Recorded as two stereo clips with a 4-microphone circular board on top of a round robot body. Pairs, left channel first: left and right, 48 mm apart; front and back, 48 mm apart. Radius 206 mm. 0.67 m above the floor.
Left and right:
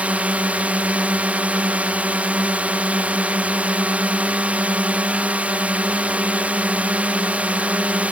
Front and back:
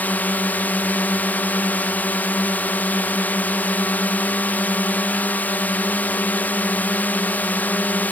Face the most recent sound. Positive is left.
turn(degrees=-40)